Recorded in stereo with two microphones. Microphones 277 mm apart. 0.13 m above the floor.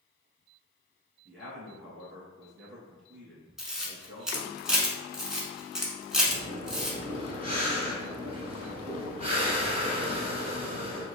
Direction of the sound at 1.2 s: 45° right (ahead or behind).